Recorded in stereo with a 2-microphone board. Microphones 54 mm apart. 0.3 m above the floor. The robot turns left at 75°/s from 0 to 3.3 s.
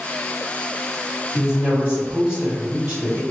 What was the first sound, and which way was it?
A woman speaking, 20° right (ahead or behind).